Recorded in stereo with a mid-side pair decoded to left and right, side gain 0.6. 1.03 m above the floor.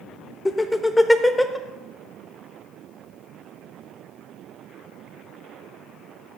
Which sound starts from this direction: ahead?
Laughter, at 0.5 s.